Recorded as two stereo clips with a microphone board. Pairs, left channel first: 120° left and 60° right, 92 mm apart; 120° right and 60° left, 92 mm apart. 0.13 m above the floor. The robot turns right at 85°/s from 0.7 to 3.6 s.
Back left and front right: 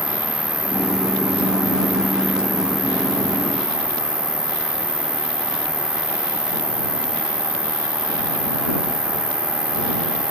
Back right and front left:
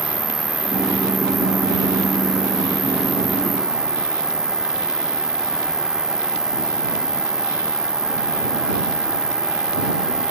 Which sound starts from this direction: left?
An insect, at 0.0 s.